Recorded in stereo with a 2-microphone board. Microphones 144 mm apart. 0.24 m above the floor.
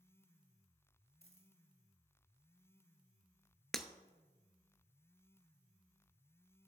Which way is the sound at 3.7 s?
Centre (ahead or behind).